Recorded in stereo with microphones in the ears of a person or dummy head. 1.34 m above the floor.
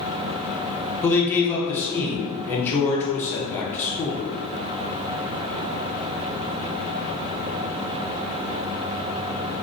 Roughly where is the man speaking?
Centre.